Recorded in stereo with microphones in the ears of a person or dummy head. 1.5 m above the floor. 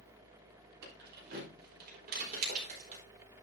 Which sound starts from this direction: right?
Keys jangling, at 0.8 s.